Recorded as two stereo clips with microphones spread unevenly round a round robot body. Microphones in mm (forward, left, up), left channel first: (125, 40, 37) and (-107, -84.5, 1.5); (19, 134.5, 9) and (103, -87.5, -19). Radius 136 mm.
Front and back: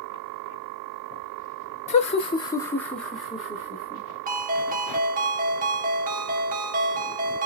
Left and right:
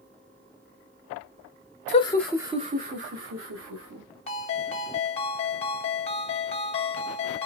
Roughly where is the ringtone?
Behind.